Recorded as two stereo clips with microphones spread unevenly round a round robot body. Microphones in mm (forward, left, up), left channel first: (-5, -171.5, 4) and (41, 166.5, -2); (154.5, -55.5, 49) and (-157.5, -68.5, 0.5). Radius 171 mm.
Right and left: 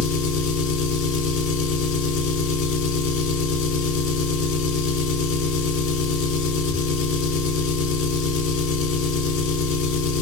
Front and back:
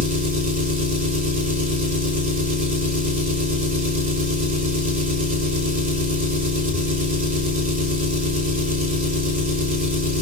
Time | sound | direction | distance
0.0 | an engine running | 135° right | 1.1 m